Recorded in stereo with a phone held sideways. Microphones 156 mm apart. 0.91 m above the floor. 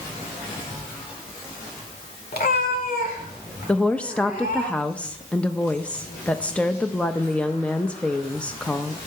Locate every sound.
2.3 s a cat meowing: 85° left, 1.6 m; by 4.7 s 70° left (ahead or behind), 4.5 m
3.7 s a woman speaking: 10° left (ahead or behind), 0.5 m